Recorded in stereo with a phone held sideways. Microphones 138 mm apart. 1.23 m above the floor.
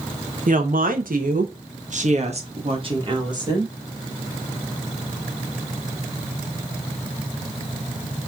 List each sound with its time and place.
0.5 s a woman speaking: 70° right (ahead or behind), 1.3 m; by 3.7 s 25° right (ahead or behind), 1.9 m